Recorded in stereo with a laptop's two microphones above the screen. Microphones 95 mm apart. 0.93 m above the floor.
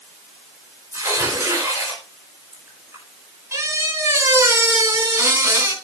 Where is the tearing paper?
30° right (ahead or behind), 5 m.